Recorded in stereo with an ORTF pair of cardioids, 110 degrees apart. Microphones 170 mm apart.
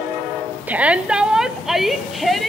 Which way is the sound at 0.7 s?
10° right.